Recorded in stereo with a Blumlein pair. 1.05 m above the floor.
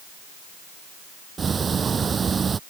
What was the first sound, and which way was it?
Ticking, 20° right.